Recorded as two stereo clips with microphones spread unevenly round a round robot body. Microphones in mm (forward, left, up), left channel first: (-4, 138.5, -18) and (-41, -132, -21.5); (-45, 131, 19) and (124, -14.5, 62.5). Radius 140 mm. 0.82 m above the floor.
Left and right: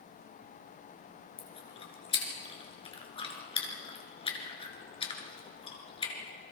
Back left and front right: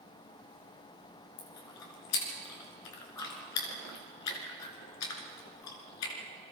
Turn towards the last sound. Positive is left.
turn(degrees=155)